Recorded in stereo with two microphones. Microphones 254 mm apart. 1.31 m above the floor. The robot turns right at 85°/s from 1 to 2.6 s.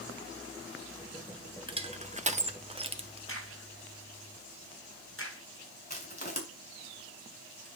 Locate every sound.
1.7 s crushing: 20° right (ahead or behind), 0.8 m; by 3.2 s 25° right (ahead or behind), 0.8 m
3.3 s a crack: 55° left (ahead or behind), 3 m
5.9 s crushing: 35° left (ahead or behind), 3.5 m